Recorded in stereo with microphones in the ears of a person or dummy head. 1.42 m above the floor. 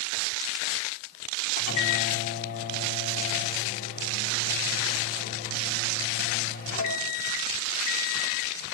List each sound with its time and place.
1.6 s a microwave: 45° left (ahead or behind), 1.3 m